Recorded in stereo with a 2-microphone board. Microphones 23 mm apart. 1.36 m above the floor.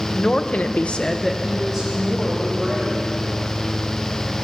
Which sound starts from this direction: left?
A woman speaking, at 0.1 s.